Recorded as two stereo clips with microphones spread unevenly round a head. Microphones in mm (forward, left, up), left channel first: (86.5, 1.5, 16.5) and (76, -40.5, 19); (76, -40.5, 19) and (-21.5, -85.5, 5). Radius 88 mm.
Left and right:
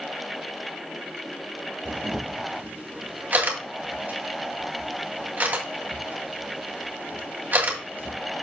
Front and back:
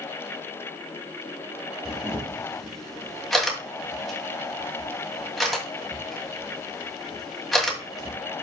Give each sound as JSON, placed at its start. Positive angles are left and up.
{"t": 1.9, "sound": "a camera shutter", "azimuth_deg": -60, "distance_m": 2.5}